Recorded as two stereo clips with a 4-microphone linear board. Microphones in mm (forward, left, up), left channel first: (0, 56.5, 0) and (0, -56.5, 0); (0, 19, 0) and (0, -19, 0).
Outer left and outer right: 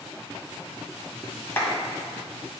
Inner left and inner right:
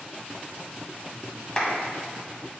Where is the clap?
20° left (ahead or behind), 1.9 m.